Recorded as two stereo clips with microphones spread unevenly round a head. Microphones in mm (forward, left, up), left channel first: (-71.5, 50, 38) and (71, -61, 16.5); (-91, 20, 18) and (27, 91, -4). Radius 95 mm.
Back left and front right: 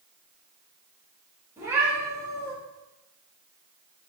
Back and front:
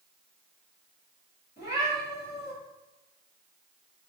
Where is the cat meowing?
115° right, 3.5 m.